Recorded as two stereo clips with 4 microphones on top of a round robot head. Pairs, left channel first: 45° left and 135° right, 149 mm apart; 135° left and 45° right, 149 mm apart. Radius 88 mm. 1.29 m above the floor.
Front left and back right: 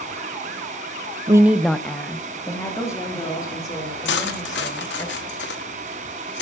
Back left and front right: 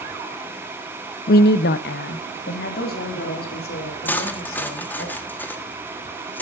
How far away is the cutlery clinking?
About 1.5 m.